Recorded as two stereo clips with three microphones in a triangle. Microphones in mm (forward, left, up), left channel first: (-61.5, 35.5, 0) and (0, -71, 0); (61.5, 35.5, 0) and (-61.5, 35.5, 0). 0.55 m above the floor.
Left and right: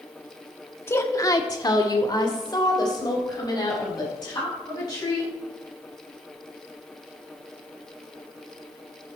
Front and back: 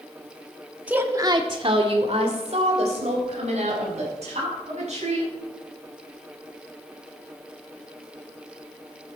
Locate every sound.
0.9 s a woman speaking: 125° left, 1.0 m; by 5.3 s 175° left, 5.5 m